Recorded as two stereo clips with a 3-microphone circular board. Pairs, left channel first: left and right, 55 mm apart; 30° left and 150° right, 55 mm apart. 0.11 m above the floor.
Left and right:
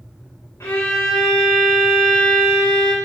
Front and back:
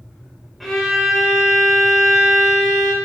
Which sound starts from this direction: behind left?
A violin, at 0.6 s.